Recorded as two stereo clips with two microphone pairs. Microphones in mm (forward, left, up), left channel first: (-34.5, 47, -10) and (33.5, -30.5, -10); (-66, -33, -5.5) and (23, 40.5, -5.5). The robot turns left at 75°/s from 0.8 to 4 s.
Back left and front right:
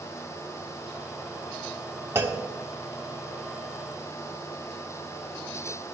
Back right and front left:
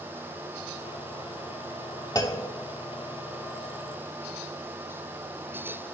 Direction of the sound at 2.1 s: 105° right.